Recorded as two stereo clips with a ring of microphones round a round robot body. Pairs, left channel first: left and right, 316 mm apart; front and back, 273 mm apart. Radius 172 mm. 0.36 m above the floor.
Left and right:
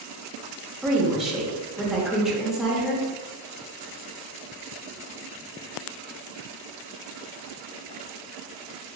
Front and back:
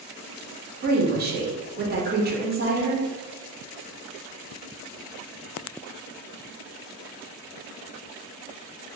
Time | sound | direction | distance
0.8 | a woman speaking | straight behind | 0.9 m